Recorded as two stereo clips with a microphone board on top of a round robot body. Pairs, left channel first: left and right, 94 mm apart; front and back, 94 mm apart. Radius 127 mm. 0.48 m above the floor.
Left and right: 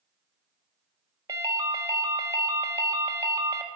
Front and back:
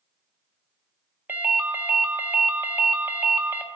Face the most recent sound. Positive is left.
turn(degrees=-120)